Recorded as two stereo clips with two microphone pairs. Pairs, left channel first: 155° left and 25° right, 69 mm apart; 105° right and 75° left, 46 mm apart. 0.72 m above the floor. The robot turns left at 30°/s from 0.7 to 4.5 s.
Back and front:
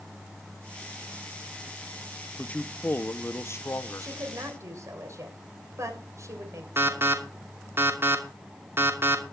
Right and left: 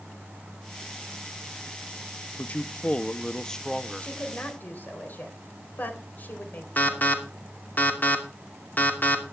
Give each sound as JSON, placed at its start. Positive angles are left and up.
{"t": 2.4, "sound": "a man speaking", "azimuth_deg": -140, "distance_m": 0.7}
{"t": 4.0, "sound": "a woman speaking", "azimuth_deg": -45, "distance_m": 3.5}
{"t": 6.8, "sound": "an alarm", "azimuth_deg": -65, "distance_m": 2.5}